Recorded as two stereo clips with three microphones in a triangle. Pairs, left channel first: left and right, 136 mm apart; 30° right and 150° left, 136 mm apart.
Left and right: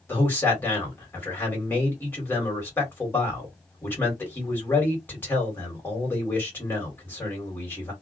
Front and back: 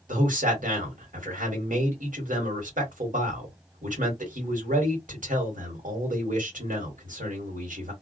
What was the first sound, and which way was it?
A man speaking, 165° left.